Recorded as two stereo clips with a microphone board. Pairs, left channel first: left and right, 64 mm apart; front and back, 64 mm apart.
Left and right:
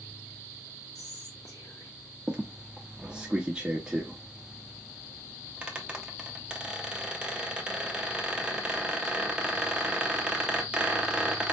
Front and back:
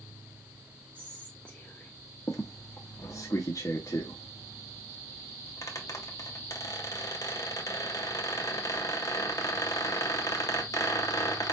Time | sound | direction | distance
0.9 | whispering | 70° left | 1.5 m
2.3 | a squeak | 15° right | 1.2 m